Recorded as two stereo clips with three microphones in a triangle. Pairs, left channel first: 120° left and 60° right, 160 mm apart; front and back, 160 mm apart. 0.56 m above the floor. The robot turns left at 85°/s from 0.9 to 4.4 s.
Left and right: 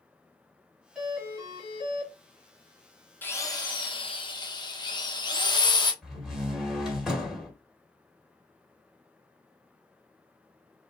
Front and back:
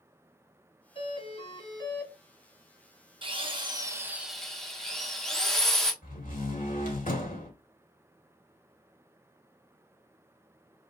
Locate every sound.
0.9 s a doorbell: 25° left, 1.9 m; by 2.1 s 70° right, 1.9 m
3.2 s a drill: 170° right, 1.0 m; by 5.9 s 85° left, 1.0 m
6.0 s a door slam: 25° left, 1.9 m